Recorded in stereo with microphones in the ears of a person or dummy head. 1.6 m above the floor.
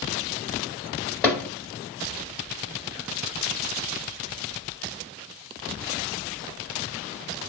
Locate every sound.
1.2 s hammering: 5° left (ahead or behind), 1.8 m